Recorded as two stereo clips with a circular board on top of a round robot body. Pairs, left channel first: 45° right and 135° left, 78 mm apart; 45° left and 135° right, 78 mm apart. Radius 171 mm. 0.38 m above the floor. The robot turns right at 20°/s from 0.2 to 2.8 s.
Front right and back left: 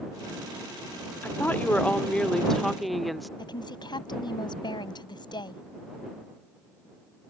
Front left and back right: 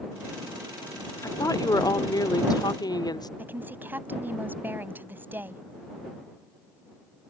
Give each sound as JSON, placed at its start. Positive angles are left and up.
{"t": 1.2, "sound": "a woman speaking", "azimuth_deg": 15}
{"t": 3.4, "sound": "a woman speaking", "azimuth_deg": -70}